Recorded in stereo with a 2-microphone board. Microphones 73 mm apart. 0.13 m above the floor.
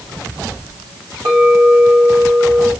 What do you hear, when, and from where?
1.2 s a clink: 60° right (ahead or behind), 4.5 m